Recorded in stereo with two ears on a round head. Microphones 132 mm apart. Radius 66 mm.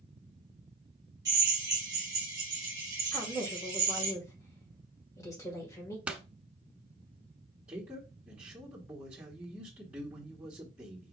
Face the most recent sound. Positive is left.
turn(degrees=-10)  # may be behind; listen again after turning